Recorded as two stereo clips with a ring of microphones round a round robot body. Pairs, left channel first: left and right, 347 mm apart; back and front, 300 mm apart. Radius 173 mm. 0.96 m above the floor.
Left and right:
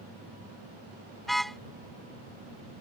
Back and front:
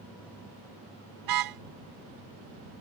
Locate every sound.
1.2 s a car horn: straight ahead